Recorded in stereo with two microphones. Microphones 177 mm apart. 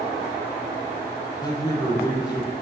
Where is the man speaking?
20° left (ahead or behind), 5.5 m.